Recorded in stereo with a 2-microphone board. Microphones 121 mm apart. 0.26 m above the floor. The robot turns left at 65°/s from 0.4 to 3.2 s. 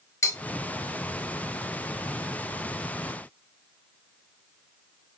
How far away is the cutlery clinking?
About 0.7 m.